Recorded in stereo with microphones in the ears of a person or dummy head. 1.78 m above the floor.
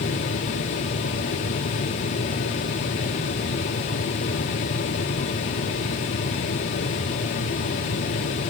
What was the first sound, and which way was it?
Only background noise.